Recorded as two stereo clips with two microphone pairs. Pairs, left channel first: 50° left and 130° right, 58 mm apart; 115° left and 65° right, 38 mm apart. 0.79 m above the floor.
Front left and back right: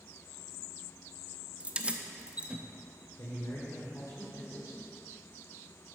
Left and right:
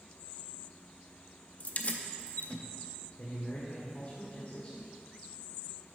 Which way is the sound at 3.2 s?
65° left.